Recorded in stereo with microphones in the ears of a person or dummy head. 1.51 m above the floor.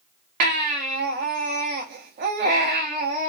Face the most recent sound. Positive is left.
turn(degrees=-40)  # may be behind; listen again after turning